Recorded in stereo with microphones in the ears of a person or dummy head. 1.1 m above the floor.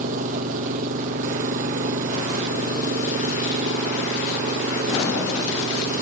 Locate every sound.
0.0 s an engine running: 45° right (ahead or behind)